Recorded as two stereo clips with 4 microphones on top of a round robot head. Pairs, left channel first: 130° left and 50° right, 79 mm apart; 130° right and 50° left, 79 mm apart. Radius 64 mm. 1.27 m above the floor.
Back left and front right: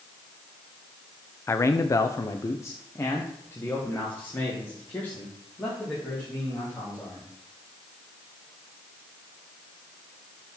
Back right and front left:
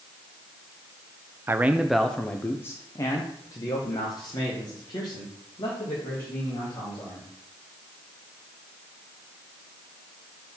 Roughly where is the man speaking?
Left.